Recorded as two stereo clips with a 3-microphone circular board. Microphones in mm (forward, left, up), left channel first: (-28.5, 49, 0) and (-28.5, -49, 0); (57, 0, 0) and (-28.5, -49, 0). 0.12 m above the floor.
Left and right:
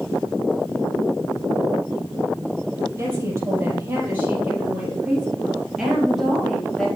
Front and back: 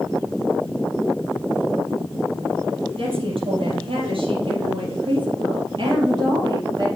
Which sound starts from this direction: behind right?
A woman speaking, at 3.0 s.